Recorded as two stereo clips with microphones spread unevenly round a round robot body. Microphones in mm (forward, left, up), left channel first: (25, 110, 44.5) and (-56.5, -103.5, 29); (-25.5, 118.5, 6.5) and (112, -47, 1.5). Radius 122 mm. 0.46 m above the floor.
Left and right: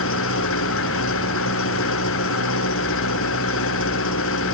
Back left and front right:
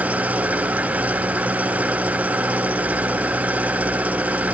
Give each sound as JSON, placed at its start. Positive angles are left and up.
{"t": 0.0, "sound": "an engine running", "azimuth_deg": 35}